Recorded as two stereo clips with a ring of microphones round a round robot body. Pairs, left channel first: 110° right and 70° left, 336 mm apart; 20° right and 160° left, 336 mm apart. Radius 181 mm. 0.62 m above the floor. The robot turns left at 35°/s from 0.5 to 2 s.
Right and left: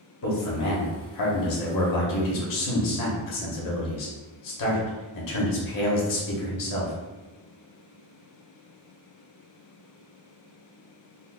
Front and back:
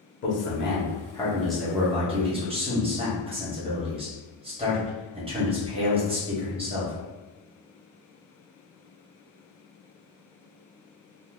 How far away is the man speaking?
About 1.1 m.